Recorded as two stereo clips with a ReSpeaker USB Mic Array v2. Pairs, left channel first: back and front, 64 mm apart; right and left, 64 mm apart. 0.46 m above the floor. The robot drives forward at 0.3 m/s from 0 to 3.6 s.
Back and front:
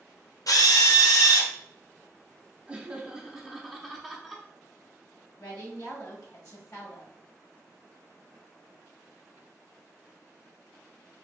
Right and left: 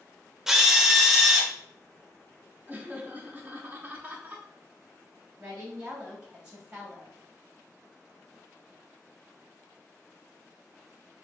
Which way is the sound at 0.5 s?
175° left.